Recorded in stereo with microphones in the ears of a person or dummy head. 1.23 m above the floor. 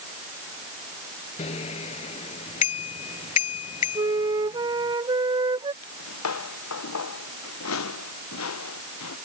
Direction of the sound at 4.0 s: 25° right (ahead or behind).